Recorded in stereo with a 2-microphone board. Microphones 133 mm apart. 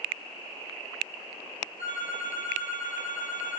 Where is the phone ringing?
85° left, 7 m.